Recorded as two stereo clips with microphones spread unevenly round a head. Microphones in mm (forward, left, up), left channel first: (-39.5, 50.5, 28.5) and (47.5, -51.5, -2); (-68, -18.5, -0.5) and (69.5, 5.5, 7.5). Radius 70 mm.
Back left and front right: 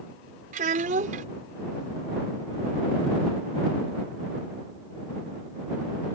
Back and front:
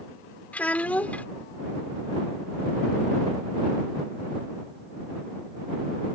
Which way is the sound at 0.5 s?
90° right.